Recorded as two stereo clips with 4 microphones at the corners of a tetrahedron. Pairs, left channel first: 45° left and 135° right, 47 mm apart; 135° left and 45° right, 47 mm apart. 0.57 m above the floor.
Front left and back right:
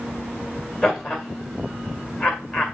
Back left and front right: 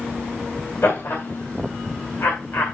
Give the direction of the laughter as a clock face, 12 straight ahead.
8 o'clock.